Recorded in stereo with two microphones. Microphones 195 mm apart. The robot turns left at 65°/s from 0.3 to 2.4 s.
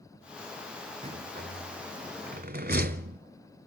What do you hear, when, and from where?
1.0 s a rattle: 35° right (ahead or behind), 0.7 m; by 3.2 s 55° right (ahead or behind), 0.7 m